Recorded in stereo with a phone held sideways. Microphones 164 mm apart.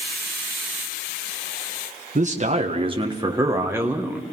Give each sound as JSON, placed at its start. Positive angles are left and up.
{"t": 2.1, "sound": "a man speaking", "side_deg": -45, "distance_m": 1.4}